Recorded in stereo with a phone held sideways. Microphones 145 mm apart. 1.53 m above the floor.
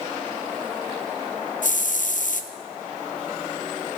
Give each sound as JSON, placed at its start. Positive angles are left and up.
{"t": 1.6, "sound": "a hiss", "side_deg": 65, "distance_m": 0.5}